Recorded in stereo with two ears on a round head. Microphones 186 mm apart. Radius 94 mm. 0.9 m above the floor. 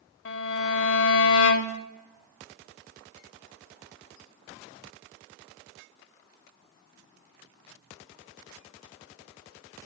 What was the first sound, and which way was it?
A violin, 55° left (ahead or behind).